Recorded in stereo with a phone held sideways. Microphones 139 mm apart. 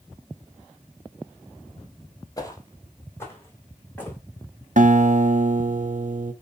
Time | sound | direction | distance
2.4 | footsteps | 25° left (ahead or behind) | 1.5 m
4.8 | a guitar | 65° right (ahead or behind) | 0.7 m